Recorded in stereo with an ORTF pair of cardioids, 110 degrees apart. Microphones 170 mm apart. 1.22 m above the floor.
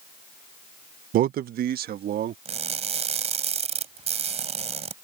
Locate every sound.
1.1 s a man speaking: 55° right; by 2.4 s 65° right
2.5 s crushing: 40° right